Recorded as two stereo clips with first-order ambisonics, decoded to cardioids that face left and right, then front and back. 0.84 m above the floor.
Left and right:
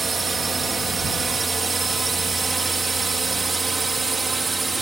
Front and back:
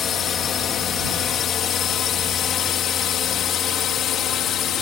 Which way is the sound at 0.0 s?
25° right.